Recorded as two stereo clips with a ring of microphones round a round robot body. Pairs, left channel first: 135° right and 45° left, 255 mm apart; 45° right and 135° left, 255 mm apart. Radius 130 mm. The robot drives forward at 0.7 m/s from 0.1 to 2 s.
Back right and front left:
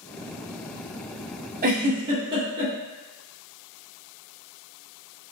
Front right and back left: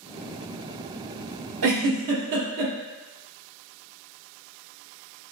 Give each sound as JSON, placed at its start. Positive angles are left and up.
{"t": 1.6, "sound": "a giggle", "azimuth_deg": 100, "distance_m": 1.0}